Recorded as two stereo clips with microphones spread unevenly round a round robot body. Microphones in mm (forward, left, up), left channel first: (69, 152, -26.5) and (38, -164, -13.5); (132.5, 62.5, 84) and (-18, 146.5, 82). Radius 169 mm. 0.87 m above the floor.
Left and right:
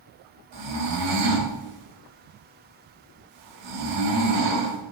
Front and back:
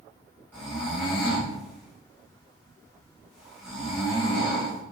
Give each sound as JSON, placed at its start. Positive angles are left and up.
{"t": 0.5, "sound": "snoring", "azimuth_deg": -125, "distance_m": 3.0}